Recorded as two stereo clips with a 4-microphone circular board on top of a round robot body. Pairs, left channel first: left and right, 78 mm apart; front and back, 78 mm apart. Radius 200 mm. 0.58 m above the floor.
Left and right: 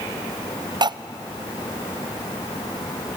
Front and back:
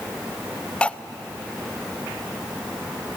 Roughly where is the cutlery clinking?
Right.